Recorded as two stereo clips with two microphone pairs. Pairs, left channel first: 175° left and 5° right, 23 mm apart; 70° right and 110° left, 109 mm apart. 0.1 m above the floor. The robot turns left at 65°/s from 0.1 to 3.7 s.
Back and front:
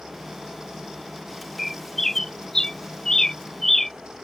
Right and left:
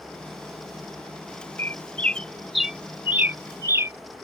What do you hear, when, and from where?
1.6 s a bird: 100° right; by 3.9 s 120° left